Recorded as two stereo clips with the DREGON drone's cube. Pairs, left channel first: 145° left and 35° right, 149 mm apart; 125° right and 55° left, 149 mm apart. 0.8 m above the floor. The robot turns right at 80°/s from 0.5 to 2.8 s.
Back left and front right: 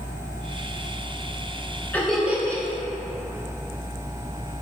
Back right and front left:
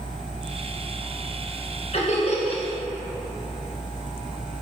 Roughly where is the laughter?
Behind right.